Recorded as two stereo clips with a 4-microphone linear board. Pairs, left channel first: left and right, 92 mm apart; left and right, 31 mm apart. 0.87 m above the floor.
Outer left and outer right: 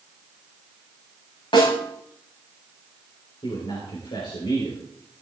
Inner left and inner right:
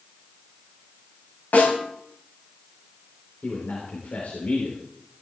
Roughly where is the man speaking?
Left.